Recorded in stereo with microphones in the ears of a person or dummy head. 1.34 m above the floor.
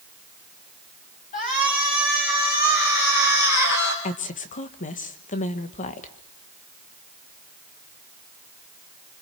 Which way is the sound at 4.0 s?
40° left (ahead or behind).